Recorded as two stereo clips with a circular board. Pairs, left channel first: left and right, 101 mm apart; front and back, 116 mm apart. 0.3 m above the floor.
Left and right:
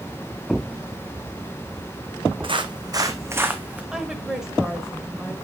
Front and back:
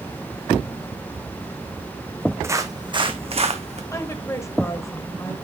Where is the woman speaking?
15° right, 1.2 m.